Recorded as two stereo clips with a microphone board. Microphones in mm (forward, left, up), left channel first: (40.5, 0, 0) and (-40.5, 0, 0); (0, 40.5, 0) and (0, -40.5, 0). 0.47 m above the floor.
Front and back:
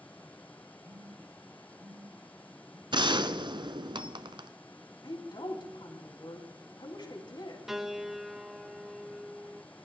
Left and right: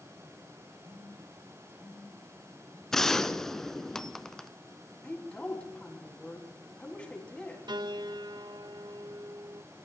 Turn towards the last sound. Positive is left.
turn(degrees=-95)